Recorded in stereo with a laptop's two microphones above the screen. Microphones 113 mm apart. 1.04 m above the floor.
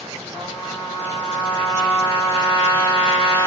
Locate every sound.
0.3 s a trumpet: 10° left (ahead or behind), 5.5 m